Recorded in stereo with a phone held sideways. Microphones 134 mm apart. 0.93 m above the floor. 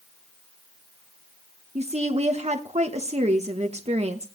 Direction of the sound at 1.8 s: 50° right (ahead or behind).